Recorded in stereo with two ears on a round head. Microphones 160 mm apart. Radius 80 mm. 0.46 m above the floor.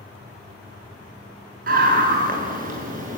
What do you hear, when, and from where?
1.7 s a scream: 55° right (ahead or behind), 7 m; by 3.2 s 50° right (ahead or behind), 8 m